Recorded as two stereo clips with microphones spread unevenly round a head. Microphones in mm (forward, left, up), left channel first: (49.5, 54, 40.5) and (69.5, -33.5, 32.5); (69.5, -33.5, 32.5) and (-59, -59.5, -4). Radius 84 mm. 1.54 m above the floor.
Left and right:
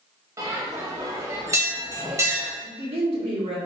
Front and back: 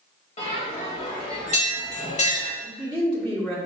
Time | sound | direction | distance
0.4 | a bell | 25° right | 1.6 m
2.6 | a woman speaking | 70° right | 1.3 m